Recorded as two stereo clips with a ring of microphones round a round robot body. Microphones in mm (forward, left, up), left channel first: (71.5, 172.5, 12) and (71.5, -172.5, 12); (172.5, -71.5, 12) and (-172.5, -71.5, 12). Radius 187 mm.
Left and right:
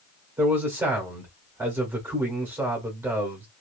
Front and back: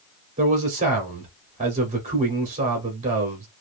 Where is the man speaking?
160° right, 1.1 m.